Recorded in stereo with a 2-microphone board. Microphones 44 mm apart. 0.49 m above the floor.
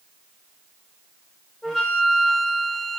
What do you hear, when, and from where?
1.6 s a flute: 10° left (ahead or behind), 1.6 m